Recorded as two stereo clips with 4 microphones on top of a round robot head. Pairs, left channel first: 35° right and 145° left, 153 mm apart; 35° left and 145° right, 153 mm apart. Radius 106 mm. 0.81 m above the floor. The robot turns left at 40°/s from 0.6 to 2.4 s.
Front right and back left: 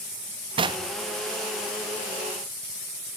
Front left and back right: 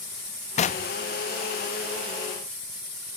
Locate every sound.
0.6 s knocking: 85° left, 0.6 m; by 0.9 s 70° left, 0.6 m